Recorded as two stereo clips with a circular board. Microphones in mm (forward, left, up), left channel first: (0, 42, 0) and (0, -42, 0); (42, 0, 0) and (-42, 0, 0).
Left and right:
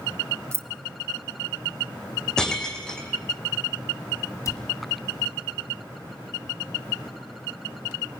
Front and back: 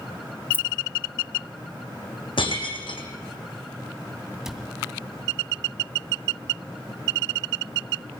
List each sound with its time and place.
0.5 s keys jangling: 55° right, 0.9 m
2.4 s breaking glass: 10° left, 2.5 m
4.5 s a cupboard door: 100° left, 2 m